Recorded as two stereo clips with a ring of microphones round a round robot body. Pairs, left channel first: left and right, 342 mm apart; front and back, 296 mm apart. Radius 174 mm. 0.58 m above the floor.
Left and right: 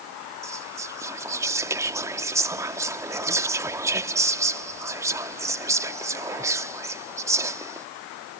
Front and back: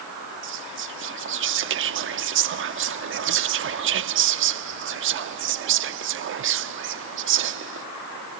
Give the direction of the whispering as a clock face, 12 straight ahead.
6 o'clock.